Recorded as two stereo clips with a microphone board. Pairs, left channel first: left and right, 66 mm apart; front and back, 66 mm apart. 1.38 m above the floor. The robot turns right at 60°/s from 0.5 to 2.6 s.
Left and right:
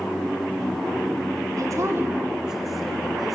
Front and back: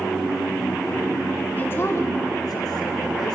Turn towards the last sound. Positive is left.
turn(degrees=-5)